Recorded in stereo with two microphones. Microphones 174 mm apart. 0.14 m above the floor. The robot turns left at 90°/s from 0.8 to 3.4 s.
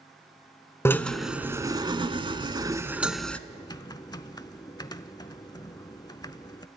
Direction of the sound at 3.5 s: 25° left (ahead or behind).